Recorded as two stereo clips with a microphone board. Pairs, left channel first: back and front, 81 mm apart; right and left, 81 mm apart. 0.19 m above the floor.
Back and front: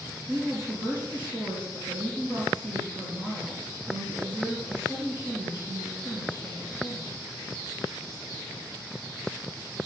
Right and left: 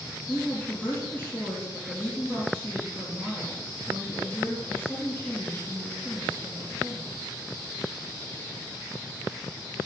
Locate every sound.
0.3 s a woman speaking: 25° right, 5.5 m